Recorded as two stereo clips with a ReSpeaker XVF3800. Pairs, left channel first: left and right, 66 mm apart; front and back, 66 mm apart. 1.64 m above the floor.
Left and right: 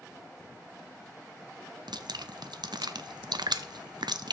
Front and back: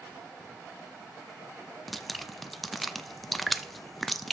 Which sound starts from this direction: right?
Dripping, at 1.9 s.